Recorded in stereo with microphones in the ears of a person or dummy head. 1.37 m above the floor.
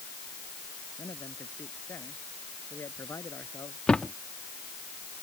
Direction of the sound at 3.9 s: 5° left (ahead or behind).